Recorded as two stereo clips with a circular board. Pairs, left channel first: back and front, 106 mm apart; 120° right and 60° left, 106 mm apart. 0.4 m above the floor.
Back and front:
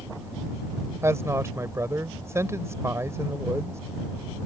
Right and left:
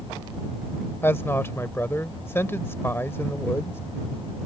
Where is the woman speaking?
60° right.